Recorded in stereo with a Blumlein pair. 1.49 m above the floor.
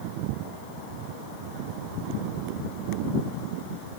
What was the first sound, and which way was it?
Only background noise.